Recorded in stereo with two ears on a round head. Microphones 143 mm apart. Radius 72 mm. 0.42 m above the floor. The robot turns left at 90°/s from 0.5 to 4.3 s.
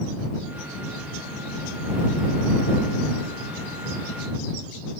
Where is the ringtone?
No ringtone in this recording.